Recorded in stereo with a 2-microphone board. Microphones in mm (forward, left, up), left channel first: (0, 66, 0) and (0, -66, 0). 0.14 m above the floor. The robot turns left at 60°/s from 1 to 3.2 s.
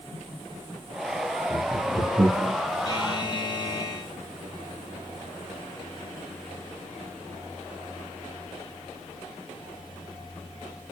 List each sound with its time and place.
1.5 s laughter: 10° right (ahead or behind), 1.6 m; by 2.5 s 30° right (ahead or behind), 1.6 m
2.9 s a buzzer: 35° left (ahead or behind), 0.8 m